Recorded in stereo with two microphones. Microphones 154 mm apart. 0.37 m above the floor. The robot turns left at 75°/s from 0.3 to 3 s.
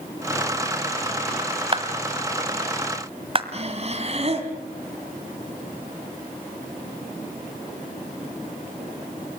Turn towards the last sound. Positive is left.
turn(degrees=-45)  # may be behind; listen again after turning